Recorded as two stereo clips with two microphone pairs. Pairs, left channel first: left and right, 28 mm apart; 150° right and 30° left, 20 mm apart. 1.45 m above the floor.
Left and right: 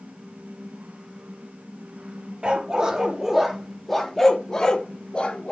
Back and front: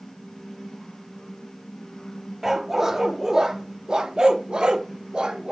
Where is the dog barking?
45° right, 1.2 m; by 5.5 s 50° left, 1.6 m.